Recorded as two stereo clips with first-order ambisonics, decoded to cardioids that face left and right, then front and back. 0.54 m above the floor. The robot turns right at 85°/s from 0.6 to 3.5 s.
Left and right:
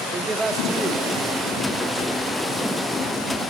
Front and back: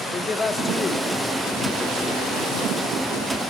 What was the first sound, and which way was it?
A man speaking, 50° right.